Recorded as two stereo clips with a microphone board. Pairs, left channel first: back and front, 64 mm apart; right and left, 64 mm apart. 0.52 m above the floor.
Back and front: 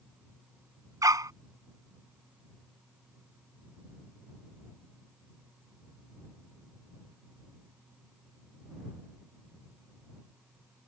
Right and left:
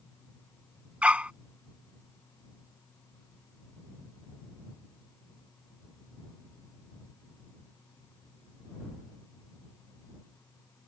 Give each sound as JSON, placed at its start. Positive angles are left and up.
{"t": 1.0, "sound": "a dog barking", "azimuth_deg": 20}